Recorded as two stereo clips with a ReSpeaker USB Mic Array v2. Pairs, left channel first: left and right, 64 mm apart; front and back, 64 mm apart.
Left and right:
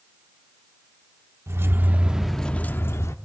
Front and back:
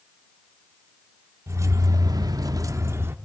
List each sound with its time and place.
1.5 s keys jangling: 135° right, 1.0 m; by 3.1 s 125° left, 0.9 m